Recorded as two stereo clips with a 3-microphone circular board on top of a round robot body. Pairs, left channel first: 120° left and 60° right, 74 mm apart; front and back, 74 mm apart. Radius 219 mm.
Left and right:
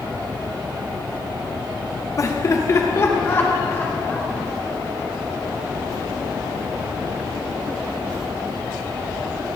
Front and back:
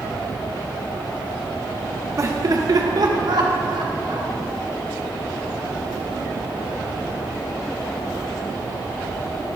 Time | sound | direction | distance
2.2 | laughter | 150° left | 1.6 m